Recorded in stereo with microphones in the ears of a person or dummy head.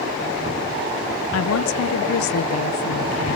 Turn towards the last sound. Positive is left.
turn(degrees=75)  # may be behind; listen again after turning